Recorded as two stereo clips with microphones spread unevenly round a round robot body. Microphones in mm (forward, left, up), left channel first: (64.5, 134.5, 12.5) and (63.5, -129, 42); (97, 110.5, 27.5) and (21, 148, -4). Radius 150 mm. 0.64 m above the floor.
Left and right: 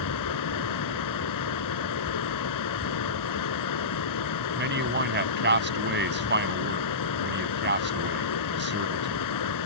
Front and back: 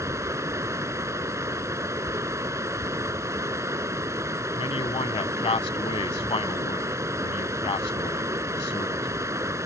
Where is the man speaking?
40° right.